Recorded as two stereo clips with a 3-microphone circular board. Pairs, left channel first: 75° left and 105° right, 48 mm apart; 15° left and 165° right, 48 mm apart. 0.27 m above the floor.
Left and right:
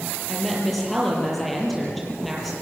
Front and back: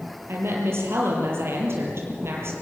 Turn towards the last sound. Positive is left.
turn(degrees=165)